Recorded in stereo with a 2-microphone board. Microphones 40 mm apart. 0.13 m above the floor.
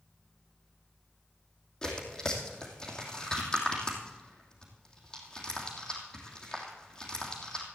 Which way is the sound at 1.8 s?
20° left (ahead or behind).